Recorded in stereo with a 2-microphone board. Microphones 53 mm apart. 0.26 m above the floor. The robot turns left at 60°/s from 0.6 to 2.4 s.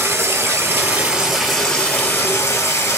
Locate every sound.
0.0 s running water: 125° right, 1.0 m; by 3.0 s 125° left, 1.0 m